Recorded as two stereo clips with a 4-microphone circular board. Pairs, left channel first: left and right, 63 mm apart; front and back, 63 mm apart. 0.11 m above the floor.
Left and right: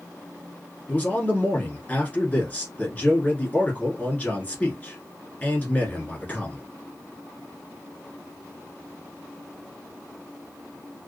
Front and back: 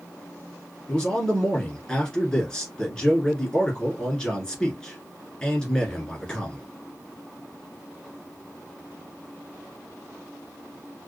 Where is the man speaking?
65° left, 1.2 m.